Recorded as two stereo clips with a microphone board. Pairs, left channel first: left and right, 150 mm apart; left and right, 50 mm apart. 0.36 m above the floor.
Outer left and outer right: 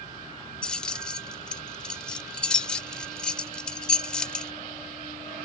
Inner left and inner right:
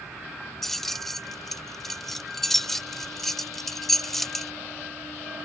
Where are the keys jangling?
5° left (ahead or behind).